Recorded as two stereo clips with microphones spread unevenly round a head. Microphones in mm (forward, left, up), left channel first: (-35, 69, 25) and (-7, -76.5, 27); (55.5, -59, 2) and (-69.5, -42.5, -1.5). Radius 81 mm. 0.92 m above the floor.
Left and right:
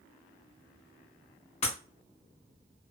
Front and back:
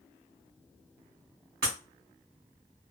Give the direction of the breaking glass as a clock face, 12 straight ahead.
7 o'clock.